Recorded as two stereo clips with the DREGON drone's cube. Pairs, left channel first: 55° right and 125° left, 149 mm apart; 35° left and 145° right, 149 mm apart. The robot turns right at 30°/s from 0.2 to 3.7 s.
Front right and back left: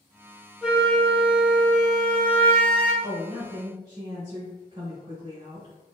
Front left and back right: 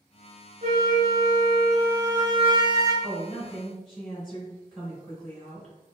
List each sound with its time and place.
0.6 s a flute: 155° right, 1.1 m; by 2.9 s 85° right, 1.1 m
3.0 s a woman speaking: 100° left, 2.0 m; by 5.7 s 120° left, 2.0 m